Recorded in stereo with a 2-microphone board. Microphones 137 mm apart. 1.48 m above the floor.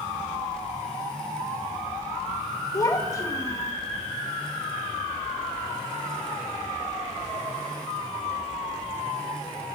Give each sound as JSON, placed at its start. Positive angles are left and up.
{"t": 2.7, "sound": "a child speaking", "side_deg": 25, "distance_m": 0.9}